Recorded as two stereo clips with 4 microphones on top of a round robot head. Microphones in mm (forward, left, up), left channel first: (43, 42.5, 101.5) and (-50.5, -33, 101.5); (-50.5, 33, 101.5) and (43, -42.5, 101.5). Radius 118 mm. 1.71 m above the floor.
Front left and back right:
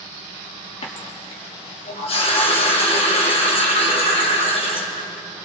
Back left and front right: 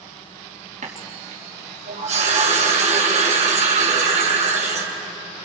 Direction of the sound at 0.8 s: 5° right.